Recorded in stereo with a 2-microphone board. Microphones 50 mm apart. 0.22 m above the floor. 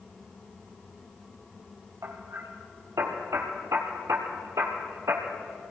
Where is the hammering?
70° right (ahead or behind), 2.5 m.